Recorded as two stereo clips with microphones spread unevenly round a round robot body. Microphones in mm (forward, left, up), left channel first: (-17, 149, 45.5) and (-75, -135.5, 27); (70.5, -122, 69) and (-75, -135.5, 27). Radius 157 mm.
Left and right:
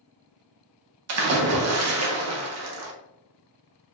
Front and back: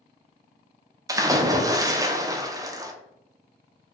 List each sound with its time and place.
1.1 s a splash: 120° right, 0.5 m